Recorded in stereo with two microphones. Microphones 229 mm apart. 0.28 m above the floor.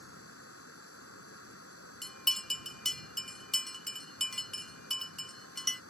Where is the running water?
85° left.